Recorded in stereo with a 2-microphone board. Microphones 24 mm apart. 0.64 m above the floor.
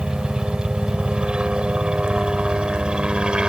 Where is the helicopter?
45° right (ahead or behind).